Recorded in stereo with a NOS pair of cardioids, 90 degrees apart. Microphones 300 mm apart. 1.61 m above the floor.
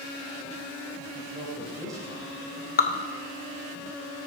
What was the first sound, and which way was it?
A man speaking, 10° right.